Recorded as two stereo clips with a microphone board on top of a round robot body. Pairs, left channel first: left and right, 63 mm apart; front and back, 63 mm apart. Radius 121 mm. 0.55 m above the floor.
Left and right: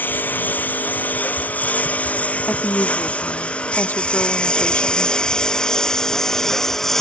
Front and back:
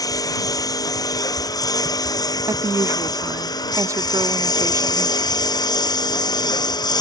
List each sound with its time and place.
0.0 s a lawn mower: 25° left; by 7.0 s 5° left
2.5 s a woman speaking: 150° left